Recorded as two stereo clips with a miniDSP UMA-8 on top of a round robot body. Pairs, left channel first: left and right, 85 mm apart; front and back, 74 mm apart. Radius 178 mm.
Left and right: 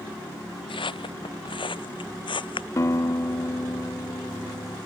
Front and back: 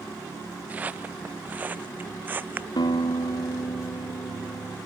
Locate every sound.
0.7 s footsteps: 110° left; by 2.7 s 115° left
2.8 s a guitar: 30° left